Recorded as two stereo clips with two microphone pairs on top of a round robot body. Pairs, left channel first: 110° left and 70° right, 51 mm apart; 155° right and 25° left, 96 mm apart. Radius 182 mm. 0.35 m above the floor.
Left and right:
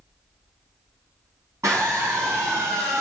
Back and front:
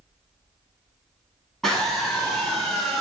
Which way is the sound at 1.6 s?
65° right.